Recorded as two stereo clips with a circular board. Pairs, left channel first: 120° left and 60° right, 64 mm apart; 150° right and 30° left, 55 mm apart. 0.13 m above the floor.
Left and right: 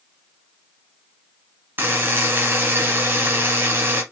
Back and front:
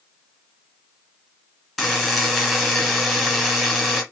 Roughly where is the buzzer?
Ahead right.